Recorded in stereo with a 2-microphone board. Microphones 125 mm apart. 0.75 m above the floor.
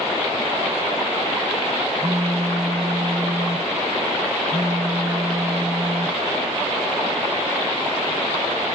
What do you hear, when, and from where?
2.0 s a phone buzzing: 25° right (ahead or behind), 0.8 m